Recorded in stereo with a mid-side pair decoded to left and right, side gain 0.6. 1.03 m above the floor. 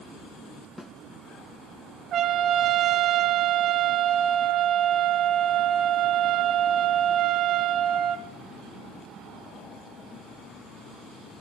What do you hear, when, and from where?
0.8 s a snare drum: 5° left, 2.5 m
2.1 s a trumpet: 55° right, 1.7 m